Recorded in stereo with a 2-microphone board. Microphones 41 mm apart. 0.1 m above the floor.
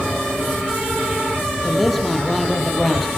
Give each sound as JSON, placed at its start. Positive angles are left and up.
{"t": 1.6, "sound": "a man speaking", "side_deg": 0, "distance_m": 3.5}